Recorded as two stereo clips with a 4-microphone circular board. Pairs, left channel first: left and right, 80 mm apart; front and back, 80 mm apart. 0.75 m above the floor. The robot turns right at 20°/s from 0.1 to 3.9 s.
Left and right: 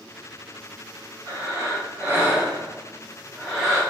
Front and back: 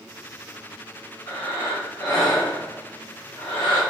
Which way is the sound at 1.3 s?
45° right.